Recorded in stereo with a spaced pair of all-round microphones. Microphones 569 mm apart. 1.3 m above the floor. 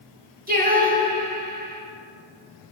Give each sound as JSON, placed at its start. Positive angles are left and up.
{"t": 0.5, "sound": "singing", "side_deg": -15, "distance_m": 3.0}